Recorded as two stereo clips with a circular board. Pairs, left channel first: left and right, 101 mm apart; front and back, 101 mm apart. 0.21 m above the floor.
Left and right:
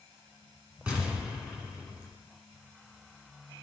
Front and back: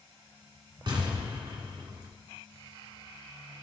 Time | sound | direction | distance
0.9 | an explosion | 165° right | 2.5 m